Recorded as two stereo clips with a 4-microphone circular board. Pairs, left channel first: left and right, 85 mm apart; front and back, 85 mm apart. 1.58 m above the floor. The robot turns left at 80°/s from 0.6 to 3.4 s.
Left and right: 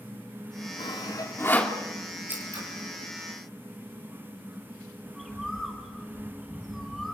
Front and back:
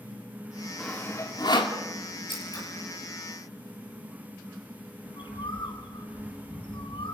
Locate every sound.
0.8 s sawing: 80° left, 2.5 m; by 1.8 s 5° left, 2.5 m
2.3 s scissors: 20° right, 7 m; by 2.6 s 50° right, 7 m
5.1 s a bird: 5° right, 4 m